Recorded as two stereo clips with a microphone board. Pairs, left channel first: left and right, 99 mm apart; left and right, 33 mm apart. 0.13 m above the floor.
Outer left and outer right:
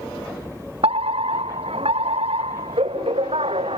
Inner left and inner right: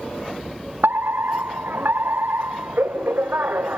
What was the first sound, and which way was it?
A fire alarm, 75° right (ahead or behind).